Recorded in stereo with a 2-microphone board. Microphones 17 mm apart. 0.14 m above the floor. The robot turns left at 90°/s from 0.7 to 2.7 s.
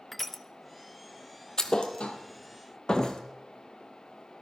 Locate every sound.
0.1 s crushing: 10° left (ahead or behind), 0.8 m
1.6 s a thud: 35° left (ahead or behind), 1.4 m; by 3.2 s 40° left (ahead or behind), 1.4 m